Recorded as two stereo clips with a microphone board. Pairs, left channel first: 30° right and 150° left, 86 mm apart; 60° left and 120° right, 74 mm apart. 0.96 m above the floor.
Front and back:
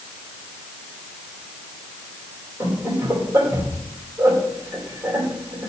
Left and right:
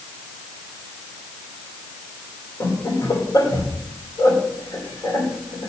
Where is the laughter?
85° left, 2.5 m.